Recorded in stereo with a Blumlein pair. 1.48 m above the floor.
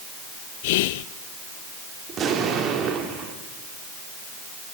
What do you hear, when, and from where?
0.6 s whispering: 50° left, 0.5 m
2.1 s an explosion: 30° right, 2.5 m